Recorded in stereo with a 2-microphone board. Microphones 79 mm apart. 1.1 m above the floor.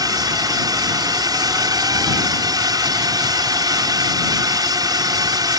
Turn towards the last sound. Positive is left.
turn(degrees=-50)  # may be behind; listen again after turning